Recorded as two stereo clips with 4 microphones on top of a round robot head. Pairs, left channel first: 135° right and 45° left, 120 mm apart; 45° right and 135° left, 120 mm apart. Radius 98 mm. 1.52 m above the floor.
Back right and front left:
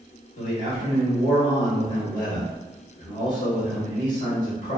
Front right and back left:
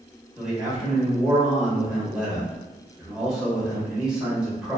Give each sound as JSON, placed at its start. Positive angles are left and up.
{"t": 0.4, "sound": "a man speaking", "azimuth_deg": -140, "distance_m": 1.1}